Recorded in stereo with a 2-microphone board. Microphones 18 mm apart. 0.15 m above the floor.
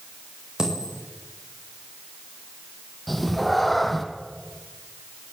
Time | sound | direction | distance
0.6 | a dropped coin | 40° right (ahead or behind) | 6.5 m
3.1 | a cat meowing | 5° left (ahead or behind) | 2.5 m